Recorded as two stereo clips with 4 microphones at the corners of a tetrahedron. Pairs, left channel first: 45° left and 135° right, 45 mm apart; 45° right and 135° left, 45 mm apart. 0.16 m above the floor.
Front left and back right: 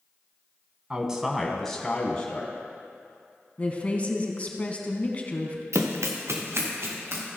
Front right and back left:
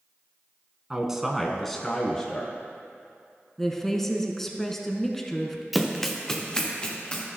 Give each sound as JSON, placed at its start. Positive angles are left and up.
{"t": 0.9, "sound": "a man speaking", "azimuth_deg": -170, "distance_m": 1.3}
{"t": 3.6, "sound": "a woman speaking", "azimuth_deg": 30, "distance_m": 1.3}
{"t": 5.7, "sound": "running footsteps", "azimuth_deg": -135, "distance_m": 1.2}